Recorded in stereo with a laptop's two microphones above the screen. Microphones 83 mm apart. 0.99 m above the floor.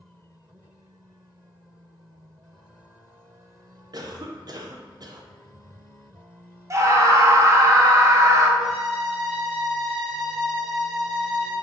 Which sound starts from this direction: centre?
A violin, at 8.6 s.